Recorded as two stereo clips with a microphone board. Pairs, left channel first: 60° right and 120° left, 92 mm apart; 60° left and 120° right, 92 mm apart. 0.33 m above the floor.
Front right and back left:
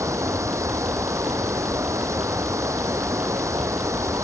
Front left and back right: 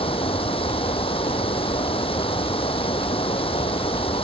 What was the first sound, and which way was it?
Running water, 65° left.